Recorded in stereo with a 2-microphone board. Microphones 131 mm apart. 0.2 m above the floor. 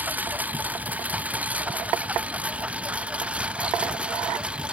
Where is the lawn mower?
10° right (ahead or behind).